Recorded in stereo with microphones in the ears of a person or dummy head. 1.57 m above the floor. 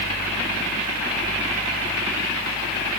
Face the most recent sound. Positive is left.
No sound to turn to.